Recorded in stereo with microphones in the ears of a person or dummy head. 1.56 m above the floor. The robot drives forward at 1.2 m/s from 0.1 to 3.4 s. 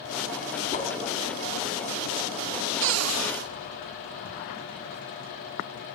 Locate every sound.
0.7 s a whoosh: 40° left (ahead or behind), 2.5 m
2.8 s a cupboard door: 70° right (ahead or behind), 0.6 m; by 3.5 s 50° right (ahead or behind), 0.8 m